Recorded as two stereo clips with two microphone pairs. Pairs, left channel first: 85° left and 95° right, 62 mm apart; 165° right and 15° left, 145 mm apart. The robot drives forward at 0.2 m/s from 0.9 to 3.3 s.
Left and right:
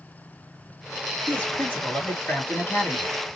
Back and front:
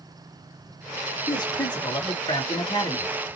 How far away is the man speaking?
About 1.8 m.